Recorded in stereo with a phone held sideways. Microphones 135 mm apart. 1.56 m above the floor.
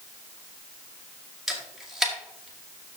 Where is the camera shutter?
Centre (ahead or behind), 2 m.